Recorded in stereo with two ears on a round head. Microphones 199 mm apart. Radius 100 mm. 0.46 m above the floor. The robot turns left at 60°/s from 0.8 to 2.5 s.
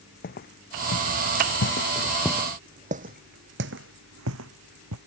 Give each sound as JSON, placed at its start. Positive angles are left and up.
{"t": 0.2, "sound": "footsteps", "side_deg": 40}